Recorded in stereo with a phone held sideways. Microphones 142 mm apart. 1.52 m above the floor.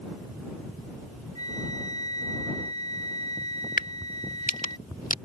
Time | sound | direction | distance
1.4 | a flute | 30° left (ahead or behind) | ?
3.8 | a crack | 60° left (ahead or behind) | ?